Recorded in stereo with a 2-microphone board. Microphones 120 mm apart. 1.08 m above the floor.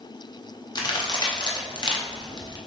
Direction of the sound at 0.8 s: 35° left (ahead or behind).